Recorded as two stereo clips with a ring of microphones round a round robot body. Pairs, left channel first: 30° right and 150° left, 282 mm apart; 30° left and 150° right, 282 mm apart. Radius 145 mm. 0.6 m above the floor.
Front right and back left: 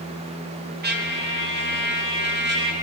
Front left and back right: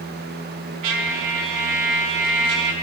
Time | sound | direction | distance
0.8 | a trumpet | 155° right | 1.4 m